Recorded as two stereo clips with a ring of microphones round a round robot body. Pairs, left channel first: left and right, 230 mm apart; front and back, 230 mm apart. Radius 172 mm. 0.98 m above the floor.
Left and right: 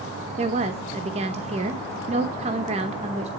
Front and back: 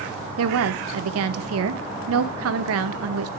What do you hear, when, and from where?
0.4 s a woman speaking: 155° right, 0.7 m